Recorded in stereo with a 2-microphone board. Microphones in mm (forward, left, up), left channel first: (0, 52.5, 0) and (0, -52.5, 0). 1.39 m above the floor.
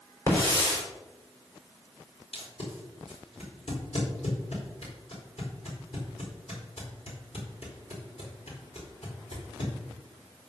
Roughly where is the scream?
I don't hear a scream.